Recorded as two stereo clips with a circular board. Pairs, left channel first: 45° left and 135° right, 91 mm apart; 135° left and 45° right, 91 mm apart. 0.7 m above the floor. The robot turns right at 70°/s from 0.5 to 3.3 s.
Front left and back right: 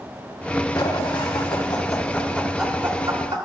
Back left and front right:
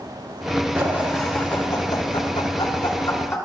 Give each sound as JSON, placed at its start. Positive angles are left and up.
{"t": 0.8, "sound": "laughter", "azimuth_deg": 15, "distance_m": 2.5}